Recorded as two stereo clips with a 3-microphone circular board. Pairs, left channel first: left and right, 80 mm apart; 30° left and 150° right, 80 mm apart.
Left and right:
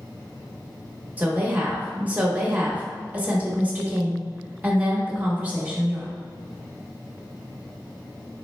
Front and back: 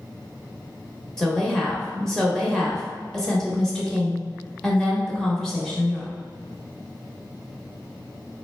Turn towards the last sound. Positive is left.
turn(degrees=-45)